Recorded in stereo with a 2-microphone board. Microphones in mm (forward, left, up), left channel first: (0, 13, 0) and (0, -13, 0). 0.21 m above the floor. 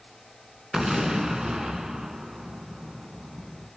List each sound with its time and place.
0.7 s an explosion: 25° right (ahead or behind), 2.5 m